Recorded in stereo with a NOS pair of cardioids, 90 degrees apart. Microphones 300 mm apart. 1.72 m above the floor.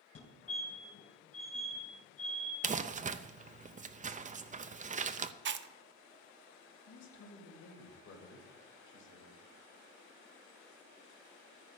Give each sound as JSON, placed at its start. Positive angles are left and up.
{"t": 0.1, "sound": "a fire alarm", "azimuth_deg": 55, "distance_m": 3.0}
{"t": 2.6, "sound": "crumpling", "azimuth_deg": -25, "distance_m": 0.6}
{"t": 5.5, "sound": "chewing", "azimuth_deg": -40, "distance_m": 0.7}
{"t": 6.9, "sound": "a man speaking", "azimuth_deg": 60, "distance_m": 3.0}